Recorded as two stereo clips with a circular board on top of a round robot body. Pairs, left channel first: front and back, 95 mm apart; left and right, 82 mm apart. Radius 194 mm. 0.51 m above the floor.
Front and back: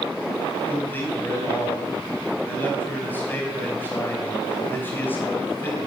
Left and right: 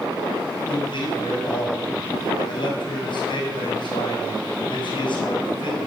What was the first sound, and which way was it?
A man speaking, 70° left.